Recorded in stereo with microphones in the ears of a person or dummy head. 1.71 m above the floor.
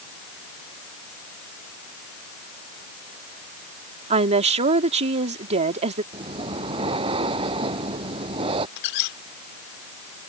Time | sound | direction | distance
4.1 | a woman speaking | 35° right (ahead or behind) | ?
6.1 | breathing | 25° right (ahead or behind) | ?
8.8 | a squeak | 65° left (ahead or behind) | ?